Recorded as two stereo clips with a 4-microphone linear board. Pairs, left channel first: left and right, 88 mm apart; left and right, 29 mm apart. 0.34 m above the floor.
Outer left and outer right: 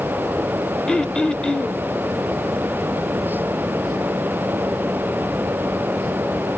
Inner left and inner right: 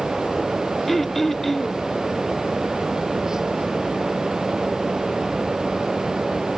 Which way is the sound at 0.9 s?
10° left (ahead or behind).